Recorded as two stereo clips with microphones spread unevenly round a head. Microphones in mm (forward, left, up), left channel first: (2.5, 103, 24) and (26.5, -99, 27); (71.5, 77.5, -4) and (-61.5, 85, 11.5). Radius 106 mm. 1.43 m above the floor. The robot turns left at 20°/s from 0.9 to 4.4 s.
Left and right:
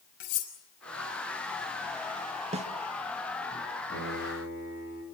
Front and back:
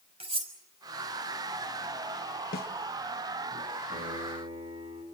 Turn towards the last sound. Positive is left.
turn(degrees=135)